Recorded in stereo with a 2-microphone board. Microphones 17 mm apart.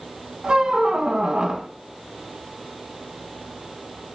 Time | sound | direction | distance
0.4 | a squeak | 50° right (ahead or behind) | 0.7 m